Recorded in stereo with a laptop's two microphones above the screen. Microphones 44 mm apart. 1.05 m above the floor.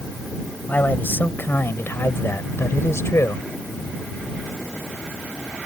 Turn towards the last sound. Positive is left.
turn(degrees=80)